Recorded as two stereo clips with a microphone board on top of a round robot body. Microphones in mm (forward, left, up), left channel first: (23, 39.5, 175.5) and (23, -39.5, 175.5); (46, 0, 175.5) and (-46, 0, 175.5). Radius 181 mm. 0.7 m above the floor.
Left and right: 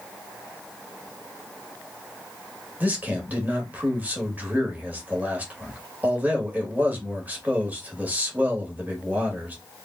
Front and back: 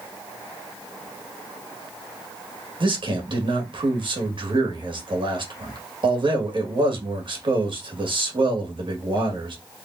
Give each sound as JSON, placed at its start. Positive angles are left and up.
{"t": 2.8, "sound": "a man speaking", "azimuth_deg": -160, "distance_m": 2.0}